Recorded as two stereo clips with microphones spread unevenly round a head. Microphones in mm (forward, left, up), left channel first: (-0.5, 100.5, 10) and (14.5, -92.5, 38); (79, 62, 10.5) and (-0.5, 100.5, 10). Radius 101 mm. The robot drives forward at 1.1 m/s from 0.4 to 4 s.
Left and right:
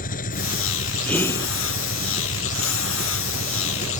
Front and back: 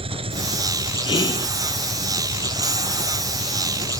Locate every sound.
0.0 s an engine running: 145° left; by 4.0 s 150° left
1.1 s whispering: 10° left; by 1.5 s 20° left